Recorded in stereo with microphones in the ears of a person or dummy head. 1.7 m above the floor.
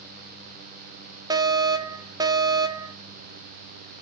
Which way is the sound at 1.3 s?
15° right (ahead or behind).